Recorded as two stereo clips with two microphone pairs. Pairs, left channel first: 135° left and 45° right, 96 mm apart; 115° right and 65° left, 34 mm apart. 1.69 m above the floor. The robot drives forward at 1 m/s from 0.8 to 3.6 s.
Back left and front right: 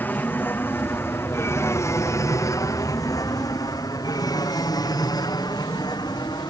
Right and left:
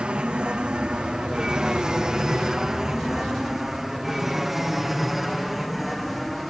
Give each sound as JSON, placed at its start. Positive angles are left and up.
{"t": 0.0, "sound": "an aircraft", "azimuth_deg": 80}